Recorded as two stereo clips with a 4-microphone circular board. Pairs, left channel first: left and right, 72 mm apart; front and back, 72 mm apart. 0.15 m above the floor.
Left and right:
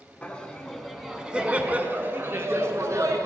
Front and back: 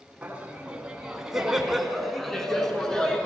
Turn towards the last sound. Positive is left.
turn(degrees=-75)